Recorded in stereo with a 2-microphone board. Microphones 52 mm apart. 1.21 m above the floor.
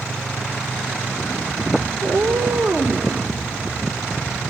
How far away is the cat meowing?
About 1.6 m.